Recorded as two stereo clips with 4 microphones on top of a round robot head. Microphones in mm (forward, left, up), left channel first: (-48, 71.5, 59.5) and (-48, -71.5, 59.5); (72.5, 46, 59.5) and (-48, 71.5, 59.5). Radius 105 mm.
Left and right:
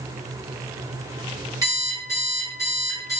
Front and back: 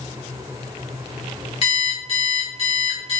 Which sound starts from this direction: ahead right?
An alarm clock, at 1.6 s.